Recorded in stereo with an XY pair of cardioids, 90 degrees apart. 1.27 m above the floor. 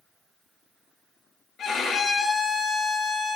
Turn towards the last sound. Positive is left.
turn(degrees=70)